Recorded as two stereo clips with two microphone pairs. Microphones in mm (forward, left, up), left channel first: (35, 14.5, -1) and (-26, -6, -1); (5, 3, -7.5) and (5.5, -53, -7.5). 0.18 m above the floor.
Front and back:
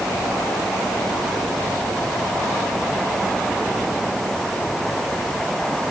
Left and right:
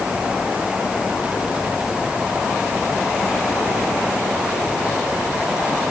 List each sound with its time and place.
Only background noise.